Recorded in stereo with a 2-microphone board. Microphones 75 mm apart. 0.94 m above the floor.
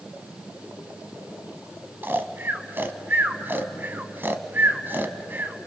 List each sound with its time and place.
2.0 s snoring: 30° right (ahead or behind), 1.0 m